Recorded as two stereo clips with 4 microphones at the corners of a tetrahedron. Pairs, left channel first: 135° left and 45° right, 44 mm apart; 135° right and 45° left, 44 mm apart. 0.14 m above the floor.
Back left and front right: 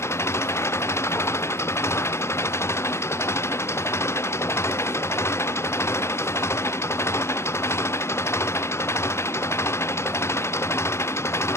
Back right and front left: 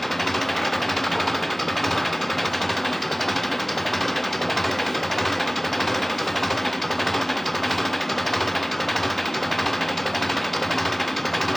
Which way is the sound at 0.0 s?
135° left.